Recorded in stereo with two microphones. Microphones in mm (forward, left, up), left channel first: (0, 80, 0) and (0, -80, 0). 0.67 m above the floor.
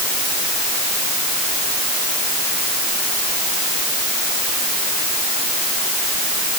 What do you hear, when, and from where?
Only background noise.